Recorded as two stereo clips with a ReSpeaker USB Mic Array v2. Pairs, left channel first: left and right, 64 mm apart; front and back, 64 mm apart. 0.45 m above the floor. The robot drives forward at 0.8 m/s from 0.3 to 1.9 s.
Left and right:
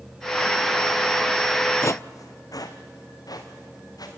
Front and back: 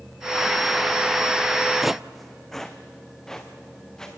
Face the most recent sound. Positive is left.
turn(degrees=80)